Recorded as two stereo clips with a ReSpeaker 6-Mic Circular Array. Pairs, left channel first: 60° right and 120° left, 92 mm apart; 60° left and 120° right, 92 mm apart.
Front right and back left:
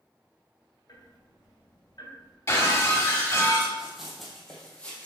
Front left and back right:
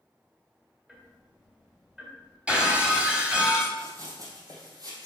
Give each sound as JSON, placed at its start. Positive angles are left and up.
{"t": 0.9, "sound": "ticking", "azimuth_deg": -40, "distance_m": 2.0}
{"t": 2.5, "sound": "breaking glass", "azimuth_deg": -50, "distance_m": 1.7}
{"t": 3.8, "sound": "running footsteps", "azimuth_deg": -160, "distance_m": 2.5}